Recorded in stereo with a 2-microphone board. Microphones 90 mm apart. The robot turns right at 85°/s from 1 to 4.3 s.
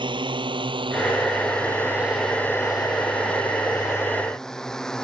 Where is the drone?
60° right (ahead or behind); by 5.0 s 5° left (ahead or behind).